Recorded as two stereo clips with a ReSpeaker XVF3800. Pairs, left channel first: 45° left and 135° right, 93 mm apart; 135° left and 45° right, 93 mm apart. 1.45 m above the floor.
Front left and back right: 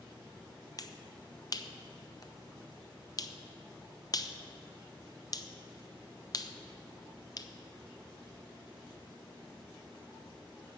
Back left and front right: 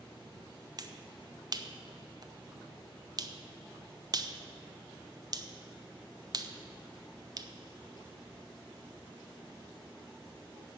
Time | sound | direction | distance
0.8 | a finger snap | straight ahead | 0.6 m